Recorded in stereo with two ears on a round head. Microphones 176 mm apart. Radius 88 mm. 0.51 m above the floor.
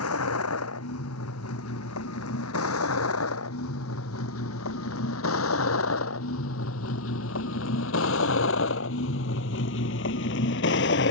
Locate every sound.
0.0 s a vehicle: 85° left; by 11.1 s 60° left (ahead or behind)